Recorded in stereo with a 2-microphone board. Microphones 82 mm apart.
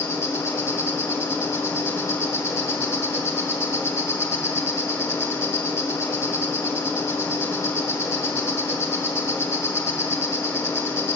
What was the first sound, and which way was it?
An insect, 35° left (ahead or behind).